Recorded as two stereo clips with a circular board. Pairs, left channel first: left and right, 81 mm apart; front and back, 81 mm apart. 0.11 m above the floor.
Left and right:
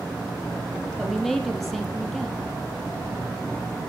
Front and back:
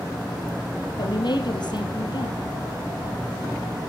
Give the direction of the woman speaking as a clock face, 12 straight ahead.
12 o'clock.